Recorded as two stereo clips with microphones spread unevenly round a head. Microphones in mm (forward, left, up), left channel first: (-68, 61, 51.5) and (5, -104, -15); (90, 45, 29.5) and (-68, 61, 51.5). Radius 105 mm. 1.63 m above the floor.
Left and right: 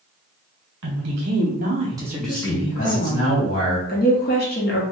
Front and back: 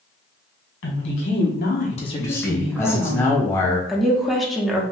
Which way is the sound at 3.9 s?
90° left.